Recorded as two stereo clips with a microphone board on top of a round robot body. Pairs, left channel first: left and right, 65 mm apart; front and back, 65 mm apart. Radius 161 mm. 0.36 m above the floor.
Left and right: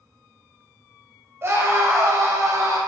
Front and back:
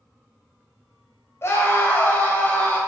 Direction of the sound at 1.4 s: 45° right.